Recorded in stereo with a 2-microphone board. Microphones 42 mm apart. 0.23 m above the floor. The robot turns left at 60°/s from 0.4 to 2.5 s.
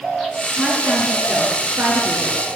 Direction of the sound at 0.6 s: Straight ahead.